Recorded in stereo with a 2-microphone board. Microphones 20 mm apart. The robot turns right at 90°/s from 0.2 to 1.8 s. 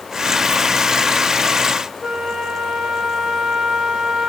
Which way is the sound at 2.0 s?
60° right (ahead or behind).